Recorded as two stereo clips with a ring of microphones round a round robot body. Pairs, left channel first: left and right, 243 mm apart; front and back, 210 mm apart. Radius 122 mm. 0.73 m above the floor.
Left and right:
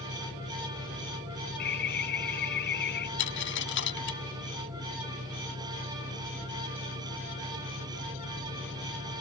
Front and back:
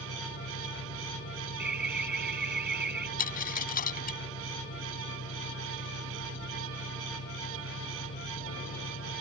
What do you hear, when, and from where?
0.0 s an engine running: 20° right
1.6 s an alarm: 140° left
3.2 s a dropped coin: 45° left